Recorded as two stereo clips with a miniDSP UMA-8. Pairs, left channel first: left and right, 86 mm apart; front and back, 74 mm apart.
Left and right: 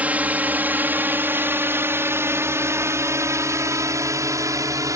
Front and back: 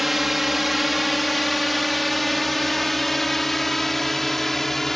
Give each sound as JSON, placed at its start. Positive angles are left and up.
{"t": 0.0, "sound": "a drone", "azimuth_deg": -95}